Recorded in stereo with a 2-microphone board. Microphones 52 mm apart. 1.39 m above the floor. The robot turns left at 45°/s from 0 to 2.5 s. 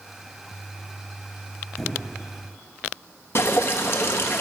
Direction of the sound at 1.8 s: 5° right (ahead or behind).